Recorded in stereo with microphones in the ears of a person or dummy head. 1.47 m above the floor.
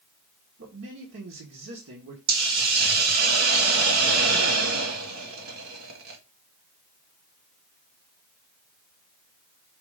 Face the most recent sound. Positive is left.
turn(degrees=-80)